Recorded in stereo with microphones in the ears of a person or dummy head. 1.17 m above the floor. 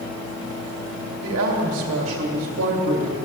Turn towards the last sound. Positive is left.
turn(degrees=-70)  # may be behind; listen again after turning